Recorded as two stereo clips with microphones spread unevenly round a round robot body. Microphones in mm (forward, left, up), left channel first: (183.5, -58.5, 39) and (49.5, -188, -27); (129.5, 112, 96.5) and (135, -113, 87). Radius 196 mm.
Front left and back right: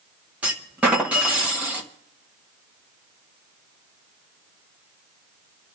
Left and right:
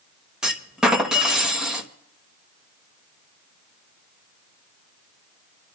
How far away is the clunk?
About 1.1 m.